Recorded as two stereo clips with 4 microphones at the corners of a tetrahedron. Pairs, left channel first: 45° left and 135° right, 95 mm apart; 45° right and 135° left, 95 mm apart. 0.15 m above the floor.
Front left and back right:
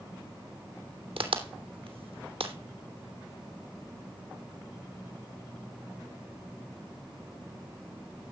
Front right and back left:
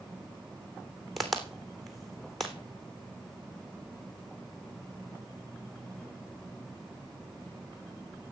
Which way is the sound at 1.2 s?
135° right.